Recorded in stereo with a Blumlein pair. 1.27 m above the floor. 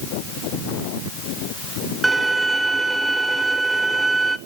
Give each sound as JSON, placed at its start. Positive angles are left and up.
{"t": 2.0, "sound": "a violin", "azimuth_deg": -5, "distance_m": 0.5}